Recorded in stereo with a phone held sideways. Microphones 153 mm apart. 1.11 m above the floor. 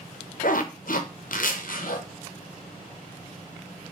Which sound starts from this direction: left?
A zipper, at 0.4 s.